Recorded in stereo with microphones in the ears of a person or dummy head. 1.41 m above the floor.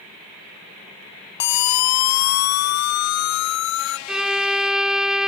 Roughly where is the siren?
Left.